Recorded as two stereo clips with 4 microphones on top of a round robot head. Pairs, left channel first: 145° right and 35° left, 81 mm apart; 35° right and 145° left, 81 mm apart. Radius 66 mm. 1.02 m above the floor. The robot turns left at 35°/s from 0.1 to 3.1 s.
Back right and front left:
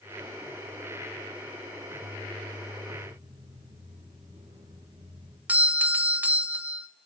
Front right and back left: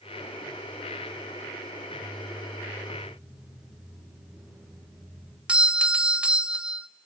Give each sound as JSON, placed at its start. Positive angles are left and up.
{"t": 3.0, "sound": "footsteps", "azimuth_deg": 60, "distance_m": 9.5}
{"t": 5.5, "sound": "a doorbell", "azimuth_deg": 85, "distance_m": 0.7}